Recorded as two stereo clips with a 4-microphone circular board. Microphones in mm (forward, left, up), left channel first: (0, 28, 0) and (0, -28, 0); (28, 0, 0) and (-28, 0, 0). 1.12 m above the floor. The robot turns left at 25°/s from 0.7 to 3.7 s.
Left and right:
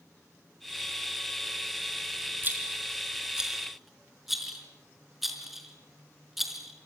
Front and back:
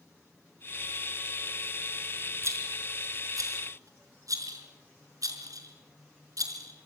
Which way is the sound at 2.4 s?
145° right.